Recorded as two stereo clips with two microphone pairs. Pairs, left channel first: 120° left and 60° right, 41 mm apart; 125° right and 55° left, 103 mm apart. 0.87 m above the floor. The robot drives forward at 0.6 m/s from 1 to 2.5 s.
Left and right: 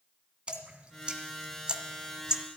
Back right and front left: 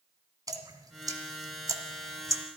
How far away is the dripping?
About 1.6 m.